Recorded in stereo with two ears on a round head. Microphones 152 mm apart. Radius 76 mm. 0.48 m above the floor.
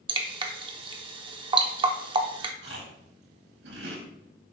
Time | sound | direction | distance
0.1 | dripping | 30° right (ahead or behind) | 0.9 m
2.6 | chewing | 75° right (ahead or behind) | 3.5 m